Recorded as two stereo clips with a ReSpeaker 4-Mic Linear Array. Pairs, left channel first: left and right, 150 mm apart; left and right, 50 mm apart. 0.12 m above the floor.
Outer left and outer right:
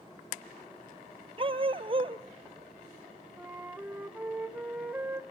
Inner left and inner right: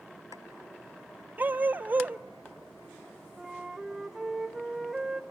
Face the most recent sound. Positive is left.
turn(degrees=-10)  # may be behind; listen again after turning